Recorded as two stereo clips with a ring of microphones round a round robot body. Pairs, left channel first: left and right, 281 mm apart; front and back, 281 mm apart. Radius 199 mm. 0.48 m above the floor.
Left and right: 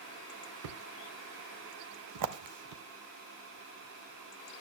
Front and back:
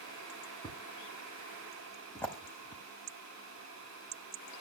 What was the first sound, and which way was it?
A thud, 85° right.